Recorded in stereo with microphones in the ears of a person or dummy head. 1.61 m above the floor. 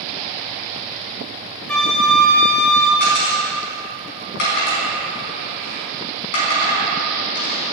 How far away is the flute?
About 1.2 m.